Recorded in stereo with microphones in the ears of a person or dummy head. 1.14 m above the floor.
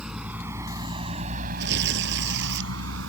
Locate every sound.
0.0 s a vehicle: 5° right (ahead or behind); by 3.1 s 75° right (ahead or behind)
1.6 s tearing paper: 65° right (ahead or behind)